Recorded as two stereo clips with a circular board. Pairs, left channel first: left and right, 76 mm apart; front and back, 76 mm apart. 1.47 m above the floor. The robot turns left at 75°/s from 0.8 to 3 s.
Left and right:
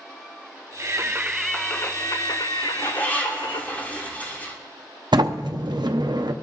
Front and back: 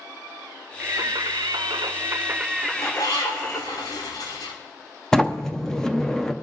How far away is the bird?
About 2.5 m.